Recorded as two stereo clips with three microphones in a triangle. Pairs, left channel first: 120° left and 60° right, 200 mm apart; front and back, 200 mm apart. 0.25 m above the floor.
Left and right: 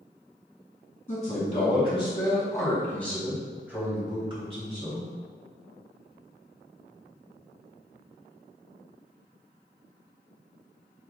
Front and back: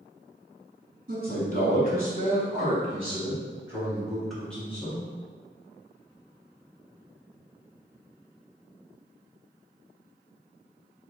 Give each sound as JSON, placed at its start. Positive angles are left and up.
{"t": 1.1, "sound": "a man speaking", "azimuth_deg": 165, "distance_m": 1.8}